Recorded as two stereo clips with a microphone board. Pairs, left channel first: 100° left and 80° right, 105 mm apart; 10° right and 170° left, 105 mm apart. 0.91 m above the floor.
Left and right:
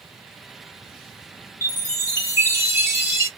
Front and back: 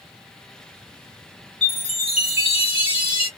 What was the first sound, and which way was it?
A chime, 15° right.